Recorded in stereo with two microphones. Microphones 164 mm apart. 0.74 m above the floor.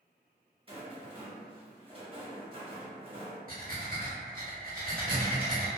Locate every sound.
0.7 s a rattle: 35° right (ahead or behind), 0.8 m
3.5 s breathing: 60° right (ahead or behind), 0.8 m